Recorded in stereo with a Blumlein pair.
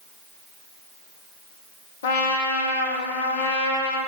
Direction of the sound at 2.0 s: 60° left.